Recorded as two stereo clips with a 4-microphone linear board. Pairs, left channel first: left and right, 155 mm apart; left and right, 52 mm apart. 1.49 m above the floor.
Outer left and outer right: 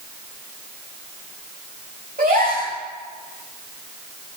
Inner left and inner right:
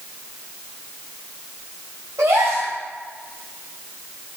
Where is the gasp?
70° right (ahead or behind), 5.5 m.